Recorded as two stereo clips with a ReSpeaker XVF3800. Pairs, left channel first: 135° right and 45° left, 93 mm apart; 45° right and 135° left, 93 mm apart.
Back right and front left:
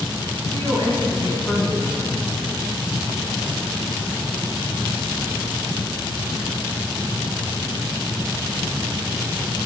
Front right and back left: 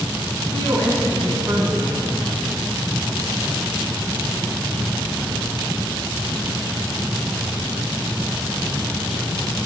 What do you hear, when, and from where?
0.5 s a woman speaking: 165° left, 4 m